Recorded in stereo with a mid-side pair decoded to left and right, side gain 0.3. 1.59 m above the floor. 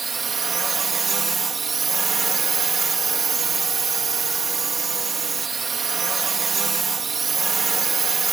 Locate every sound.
0.0 s a drone: 55° right